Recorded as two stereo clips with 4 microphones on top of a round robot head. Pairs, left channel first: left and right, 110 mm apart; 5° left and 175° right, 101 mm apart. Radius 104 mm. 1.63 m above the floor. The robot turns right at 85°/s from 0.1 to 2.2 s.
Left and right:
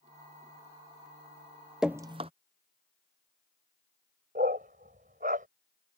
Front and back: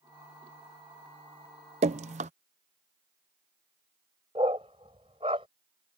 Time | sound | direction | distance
1.8 | dripping | 175° right | ?
4.3 | a dog barking | 115° right | ?